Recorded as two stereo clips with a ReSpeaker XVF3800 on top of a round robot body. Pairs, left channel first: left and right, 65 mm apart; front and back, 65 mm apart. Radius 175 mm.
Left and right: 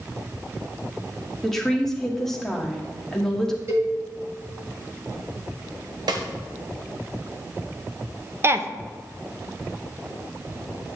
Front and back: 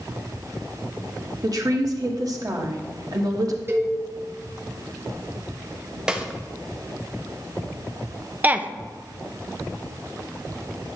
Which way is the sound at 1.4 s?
175° left.